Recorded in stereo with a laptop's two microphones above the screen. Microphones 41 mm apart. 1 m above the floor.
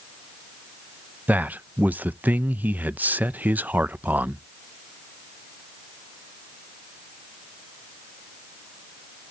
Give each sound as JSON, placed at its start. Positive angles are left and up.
{"t": 1.3, "sound": "a man speaking", "side_deg": -45, "distance_m": 0.5}